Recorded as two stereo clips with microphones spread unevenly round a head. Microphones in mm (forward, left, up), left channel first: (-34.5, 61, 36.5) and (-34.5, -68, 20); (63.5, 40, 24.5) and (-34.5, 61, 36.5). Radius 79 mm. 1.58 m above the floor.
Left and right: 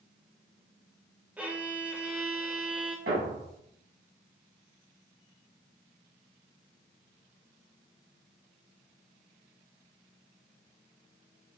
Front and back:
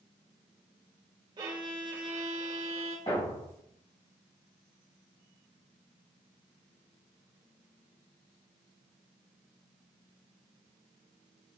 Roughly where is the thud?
Right.